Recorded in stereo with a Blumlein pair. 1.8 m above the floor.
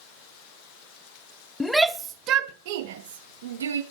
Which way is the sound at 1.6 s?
5° left.